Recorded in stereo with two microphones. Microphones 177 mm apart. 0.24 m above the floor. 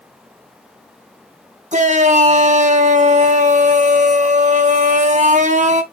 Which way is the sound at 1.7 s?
45° right (ahead or behind).